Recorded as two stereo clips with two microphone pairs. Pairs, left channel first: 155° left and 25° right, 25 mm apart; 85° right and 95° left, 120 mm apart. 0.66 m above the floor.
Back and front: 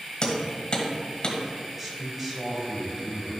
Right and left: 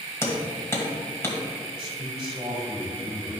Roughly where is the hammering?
Behind right.